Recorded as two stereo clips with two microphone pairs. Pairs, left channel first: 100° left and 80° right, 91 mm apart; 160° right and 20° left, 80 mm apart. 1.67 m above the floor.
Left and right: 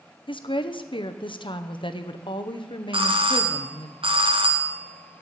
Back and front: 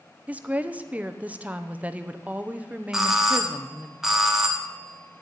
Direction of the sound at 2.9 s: 65° right.